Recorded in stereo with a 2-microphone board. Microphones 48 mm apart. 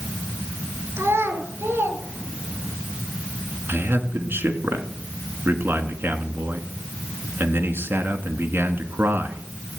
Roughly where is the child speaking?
Right.